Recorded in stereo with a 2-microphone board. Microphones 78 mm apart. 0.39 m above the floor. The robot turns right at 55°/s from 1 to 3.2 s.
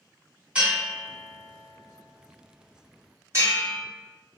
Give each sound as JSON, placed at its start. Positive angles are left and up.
{"t": 0.6, "sound": "a bell", "side_deg": -15, "distance_m": 1.8}